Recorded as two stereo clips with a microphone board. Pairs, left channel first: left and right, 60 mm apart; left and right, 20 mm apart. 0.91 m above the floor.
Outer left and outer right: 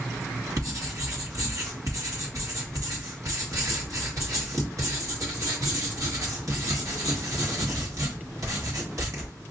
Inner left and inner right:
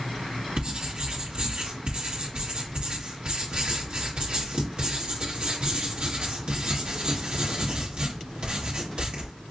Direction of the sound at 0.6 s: 65° right (ahead or behind).